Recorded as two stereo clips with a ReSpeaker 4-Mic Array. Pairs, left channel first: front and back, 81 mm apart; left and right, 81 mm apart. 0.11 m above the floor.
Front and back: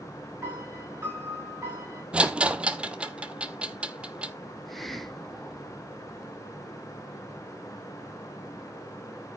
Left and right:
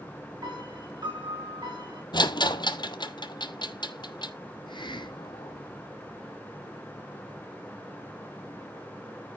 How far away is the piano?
About 6.5 m.